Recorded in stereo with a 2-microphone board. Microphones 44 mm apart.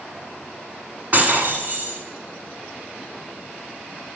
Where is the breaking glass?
45° right (ahead or behind), 1.3 m.